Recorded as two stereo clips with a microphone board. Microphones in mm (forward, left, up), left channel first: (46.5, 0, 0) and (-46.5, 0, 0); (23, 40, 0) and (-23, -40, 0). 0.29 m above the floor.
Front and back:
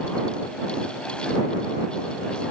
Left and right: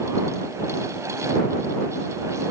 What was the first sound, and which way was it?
Only background noise.